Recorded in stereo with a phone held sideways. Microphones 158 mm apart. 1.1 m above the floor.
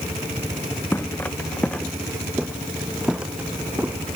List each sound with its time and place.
0.9 s footsteps: 15° left (ahead or behind); by 4.0 s 15° right (ahead or behind)